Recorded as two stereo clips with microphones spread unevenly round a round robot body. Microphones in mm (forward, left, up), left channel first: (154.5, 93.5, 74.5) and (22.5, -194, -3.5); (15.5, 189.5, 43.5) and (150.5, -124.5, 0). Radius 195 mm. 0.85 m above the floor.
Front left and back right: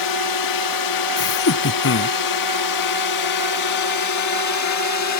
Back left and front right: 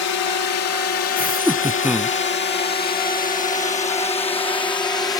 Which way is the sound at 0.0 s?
80° left.